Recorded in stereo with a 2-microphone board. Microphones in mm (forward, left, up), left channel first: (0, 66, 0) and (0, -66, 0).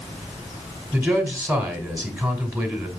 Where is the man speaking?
20° right (ahead or behind), 2.0 m.